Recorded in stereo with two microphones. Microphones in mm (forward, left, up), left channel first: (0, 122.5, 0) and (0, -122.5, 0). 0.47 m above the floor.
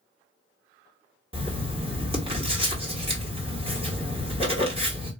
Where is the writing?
25° right (ahead or behind), 1.6 m.